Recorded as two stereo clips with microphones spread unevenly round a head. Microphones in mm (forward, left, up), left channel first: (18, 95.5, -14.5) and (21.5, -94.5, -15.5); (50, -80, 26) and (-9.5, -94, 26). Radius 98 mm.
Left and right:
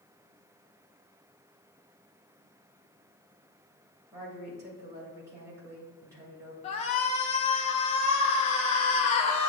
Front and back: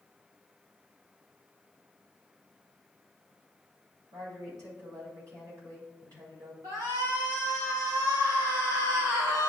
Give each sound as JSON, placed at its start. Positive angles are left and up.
{"t": 4.1, "sound": "a woman speaking", "azimuth_deg": -165, "distance_m": 2.5}
{"t": 6.6, "sound": "a shout", "azimuth_deg": 150, "distance_m": 0.6}